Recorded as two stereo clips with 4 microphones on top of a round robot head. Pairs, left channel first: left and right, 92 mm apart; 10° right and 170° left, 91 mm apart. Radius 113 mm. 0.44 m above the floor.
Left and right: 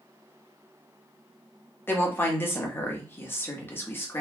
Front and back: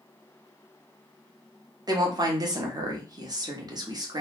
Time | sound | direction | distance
1.9 | a woman speaking | 150° left | 1.2 m